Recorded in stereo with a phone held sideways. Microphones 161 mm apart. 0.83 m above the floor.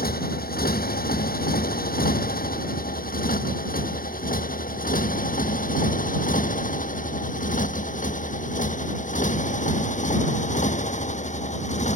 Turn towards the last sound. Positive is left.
turn(degrees=50)  # may be behind; listen again after turning